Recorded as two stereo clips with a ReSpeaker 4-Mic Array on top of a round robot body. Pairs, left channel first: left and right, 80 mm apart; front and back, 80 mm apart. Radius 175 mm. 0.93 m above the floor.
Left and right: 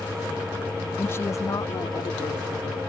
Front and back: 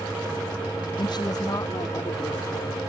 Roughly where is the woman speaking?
Ahead left.